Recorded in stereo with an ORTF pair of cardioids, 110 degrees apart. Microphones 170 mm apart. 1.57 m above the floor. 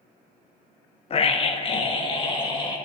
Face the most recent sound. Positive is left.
turn(degrees=30)